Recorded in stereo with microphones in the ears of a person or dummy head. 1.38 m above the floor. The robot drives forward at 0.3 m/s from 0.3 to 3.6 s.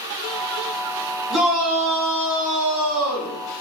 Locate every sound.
1.3 s a shout: 10° right (ahead or behind), 1.4 m; by 3.4 s 5° right (ahead or behind), 2 m